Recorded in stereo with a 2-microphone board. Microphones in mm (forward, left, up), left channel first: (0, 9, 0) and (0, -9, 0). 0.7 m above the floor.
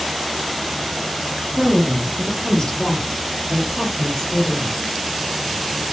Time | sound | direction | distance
1.6 | a woman speaking | 20° left (ahead or behind) | 0.9 m